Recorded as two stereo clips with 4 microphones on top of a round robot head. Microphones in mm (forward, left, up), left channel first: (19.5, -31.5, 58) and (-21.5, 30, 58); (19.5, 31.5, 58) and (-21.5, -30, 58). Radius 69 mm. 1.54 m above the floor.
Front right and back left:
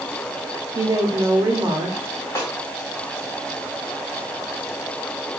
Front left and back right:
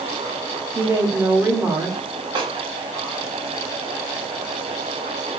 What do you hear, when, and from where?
0.8 s a woman speaking: 175° left, 0.9 m
2.4 s a snare drum: 110° right, 1.5 m